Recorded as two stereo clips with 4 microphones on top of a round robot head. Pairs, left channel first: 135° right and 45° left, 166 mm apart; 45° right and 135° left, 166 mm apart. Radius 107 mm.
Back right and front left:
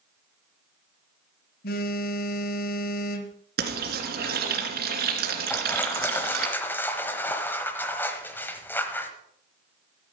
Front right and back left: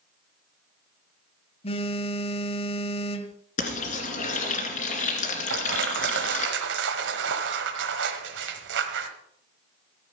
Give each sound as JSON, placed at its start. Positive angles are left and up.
{"t": 1.6, "sound": "a phone buzzing", "azimuth_deg": -100, "distance_m": 0.9}
{"t": 3.6, "sound": "frying", "azimuth_deg": 10, "distance_m": 2.5}
{"t": 5.5, "sound": "crushing", "azimuth_deg": 145, "distance_m": 1.1}